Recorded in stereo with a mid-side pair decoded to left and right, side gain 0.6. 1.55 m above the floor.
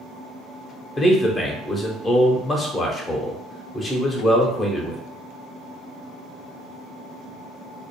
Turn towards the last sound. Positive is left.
turn(degrees=25)